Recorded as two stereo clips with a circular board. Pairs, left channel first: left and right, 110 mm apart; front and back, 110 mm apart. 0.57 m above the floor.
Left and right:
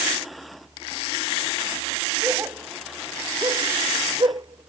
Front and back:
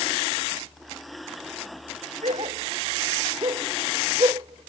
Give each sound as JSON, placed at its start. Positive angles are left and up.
{"t": 2.2, "sound": "a dog barking", "azimuth_deg": -160}